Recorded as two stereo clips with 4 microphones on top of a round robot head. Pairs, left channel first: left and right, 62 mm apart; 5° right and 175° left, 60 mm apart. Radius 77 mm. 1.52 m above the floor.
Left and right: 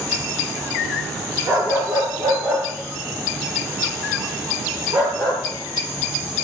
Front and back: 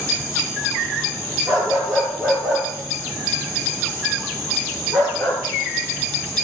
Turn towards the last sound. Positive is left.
turn(degrees=-100)